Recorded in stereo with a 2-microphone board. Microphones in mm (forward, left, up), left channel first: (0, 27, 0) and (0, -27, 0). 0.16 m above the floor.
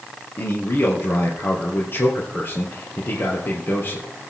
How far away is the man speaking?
About 3.5 m.